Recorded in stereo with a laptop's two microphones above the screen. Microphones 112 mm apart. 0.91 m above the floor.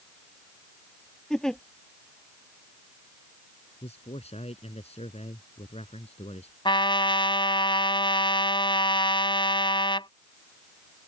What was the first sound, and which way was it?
A giggle, 5° left (ahead or behind).